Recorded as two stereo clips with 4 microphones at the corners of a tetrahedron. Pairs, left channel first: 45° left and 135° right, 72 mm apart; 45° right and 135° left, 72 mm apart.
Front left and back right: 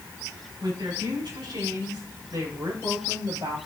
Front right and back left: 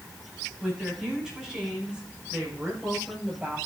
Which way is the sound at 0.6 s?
155° right.